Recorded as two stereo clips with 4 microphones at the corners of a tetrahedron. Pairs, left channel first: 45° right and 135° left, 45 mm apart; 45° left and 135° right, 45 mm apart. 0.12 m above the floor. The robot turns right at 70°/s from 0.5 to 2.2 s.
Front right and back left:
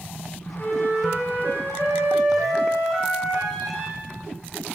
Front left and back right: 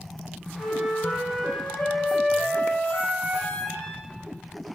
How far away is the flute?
About 5 m.